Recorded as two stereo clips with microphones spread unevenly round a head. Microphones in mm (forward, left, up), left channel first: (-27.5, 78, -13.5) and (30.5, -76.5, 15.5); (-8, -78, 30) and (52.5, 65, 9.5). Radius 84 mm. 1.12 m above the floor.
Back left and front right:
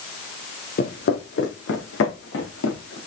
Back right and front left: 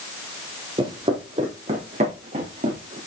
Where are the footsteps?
135° left, 1.5 m; by 3.0 s 120° left, 3 m.